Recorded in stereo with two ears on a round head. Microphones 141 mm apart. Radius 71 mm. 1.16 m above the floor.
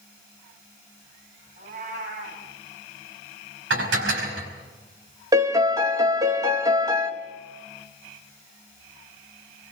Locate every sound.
1.6 s a cat meowing: 50° right (ahead or behind), 5.5 m
3.7 s dishes clattering: 80° right, 5 m
5.3 s a piano: 20° right (ahead or behind), 1.6 m